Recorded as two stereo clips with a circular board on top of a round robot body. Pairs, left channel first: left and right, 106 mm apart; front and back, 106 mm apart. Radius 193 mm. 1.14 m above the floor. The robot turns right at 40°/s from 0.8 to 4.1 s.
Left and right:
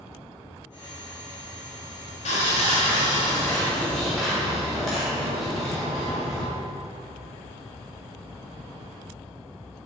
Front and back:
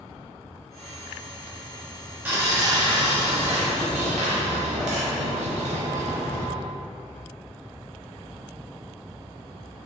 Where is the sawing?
105° left, 1.2 m; by 6.5 s straight behind, 1.2 m.